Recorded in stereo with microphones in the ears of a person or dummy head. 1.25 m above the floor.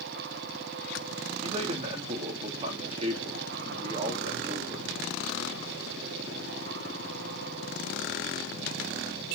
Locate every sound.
1.4 s a man speaking: 35° right (ahead or behind), 2.5 m